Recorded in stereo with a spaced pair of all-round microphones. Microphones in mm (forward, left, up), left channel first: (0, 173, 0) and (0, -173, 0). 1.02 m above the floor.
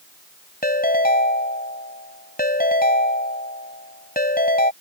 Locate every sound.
0.6 s a ringtone: 25° left (ahead or behind)